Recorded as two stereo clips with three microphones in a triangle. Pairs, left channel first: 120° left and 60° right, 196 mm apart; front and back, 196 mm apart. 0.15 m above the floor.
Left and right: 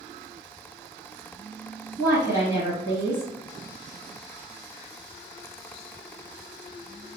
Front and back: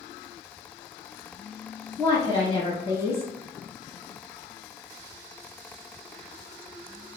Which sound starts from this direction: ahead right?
A woman speaking, at 2.0 s.